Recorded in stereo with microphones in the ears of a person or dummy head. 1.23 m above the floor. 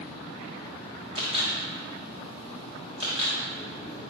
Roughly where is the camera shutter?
Right.